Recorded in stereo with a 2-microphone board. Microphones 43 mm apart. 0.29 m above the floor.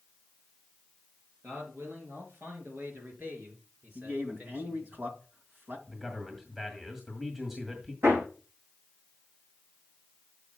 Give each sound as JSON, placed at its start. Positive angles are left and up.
{"t": 1.4, "sound": "a man speaking", "side_deg": -75, "distance_m": 4.5}
{"t": 4.0, "sound": "a man speaking", "side_deg": -55, "distance_m": 2.0}
{"t": 5.9, "sound": "a man speaking", "side_deg": -10, "distance_m": 1.8}
{"t": 8.0, "sound": "hammering", "side_deg": -80, "distance_m": 5.0}